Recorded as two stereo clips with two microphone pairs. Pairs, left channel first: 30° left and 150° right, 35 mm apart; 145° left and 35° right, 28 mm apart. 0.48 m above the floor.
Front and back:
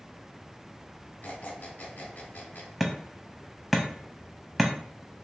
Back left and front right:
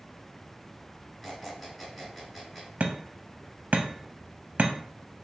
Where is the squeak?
60° left, 1.3 m.